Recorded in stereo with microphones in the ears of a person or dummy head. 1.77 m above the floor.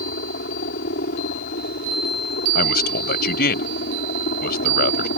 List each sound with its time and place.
0.0 s a helicopter: 55° left (ahead or behind)
2.5 s a man speaking: 60° left (ahead or behind)